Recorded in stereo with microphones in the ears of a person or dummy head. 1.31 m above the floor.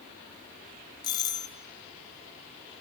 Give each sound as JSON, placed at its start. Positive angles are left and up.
{"t": 1.0, "sound": "a doorbell", "side_deg": 20, "distance_m": 0.5}